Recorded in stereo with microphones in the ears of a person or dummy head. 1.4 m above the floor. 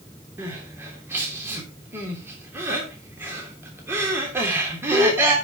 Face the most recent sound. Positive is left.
turn(degrees=-10)  # may be behind; listen again after turning